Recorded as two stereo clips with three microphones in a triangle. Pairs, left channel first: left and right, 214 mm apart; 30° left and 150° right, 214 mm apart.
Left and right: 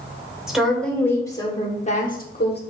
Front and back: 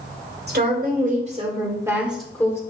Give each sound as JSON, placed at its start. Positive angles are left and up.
{"t": 0.5, "sound": "a woman speaking", "azimuth_deg": -175, "distance_m": 1.6}